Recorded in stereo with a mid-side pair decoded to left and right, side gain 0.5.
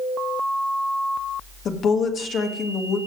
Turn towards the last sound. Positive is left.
turn(degrees=55)